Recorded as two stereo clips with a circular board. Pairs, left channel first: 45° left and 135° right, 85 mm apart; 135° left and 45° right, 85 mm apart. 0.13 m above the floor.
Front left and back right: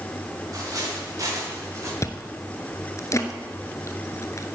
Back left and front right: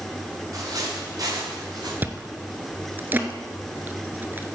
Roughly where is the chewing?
Ahead.